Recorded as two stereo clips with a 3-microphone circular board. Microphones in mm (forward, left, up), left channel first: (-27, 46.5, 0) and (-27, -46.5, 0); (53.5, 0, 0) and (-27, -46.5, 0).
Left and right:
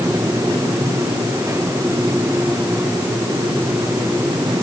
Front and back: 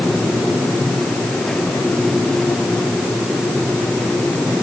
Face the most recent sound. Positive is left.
No sound to turn to.